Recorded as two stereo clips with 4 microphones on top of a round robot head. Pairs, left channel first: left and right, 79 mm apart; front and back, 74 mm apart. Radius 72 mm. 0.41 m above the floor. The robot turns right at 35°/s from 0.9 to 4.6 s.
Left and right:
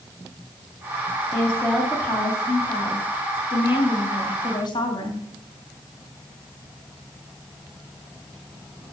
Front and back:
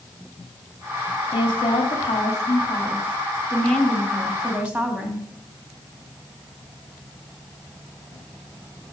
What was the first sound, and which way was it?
A woman speaking, 10° right.